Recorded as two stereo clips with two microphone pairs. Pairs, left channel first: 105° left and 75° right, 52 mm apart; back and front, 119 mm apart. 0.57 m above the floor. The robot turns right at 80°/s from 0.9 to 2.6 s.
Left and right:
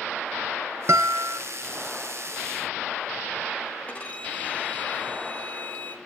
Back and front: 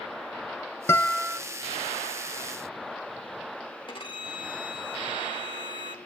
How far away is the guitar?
About 0.6 m.